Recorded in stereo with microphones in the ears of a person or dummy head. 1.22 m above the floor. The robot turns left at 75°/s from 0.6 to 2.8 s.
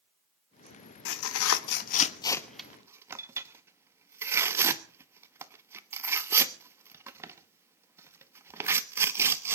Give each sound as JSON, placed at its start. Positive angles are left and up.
{"t": 1.1, "sound": "tearing paper", "side_deg": 65, "distance_m": 1.0}